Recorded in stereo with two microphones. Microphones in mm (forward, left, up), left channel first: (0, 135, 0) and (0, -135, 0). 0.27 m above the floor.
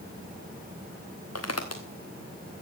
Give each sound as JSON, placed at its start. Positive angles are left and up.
{"t": 1.4, "sound": "footsteps", "side_deg": 65, "distance_m": 1.4}